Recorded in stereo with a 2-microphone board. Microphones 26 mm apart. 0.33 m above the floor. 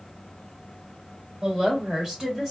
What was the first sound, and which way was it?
A woman speaking, 35° right (ahead or behind).